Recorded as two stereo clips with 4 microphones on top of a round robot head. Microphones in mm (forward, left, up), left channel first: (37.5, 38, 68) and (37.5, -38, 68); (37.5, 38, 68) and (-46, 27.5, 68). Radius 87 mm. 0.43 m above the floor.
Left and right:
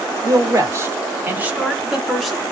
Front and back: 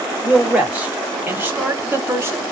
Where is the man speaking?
100° right, 1.7 m; by 2.4 s 170° left, 1.4 m.